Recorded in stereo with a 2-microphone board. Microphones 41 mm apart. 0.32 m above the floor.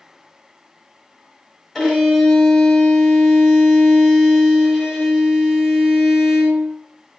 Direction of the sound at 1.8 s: 5° left (ahead or behind).